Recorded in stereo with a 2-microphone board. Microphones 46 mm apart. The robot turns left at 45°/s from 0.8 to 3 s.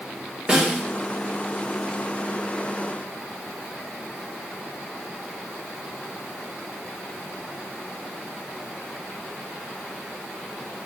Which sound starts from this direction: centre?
A snare drum, at 0.5 s.